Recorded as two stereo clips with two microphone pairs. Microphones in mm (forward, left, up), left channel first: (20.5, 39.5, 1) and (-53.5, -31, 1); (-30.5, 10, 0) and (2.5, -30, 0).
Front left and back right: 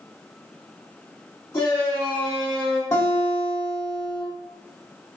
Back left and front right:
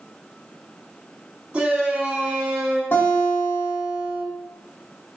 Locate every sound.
1.5 s a shout: 5° right, 1.4 m
2.9 s a guitar: 100° left, 2.0 m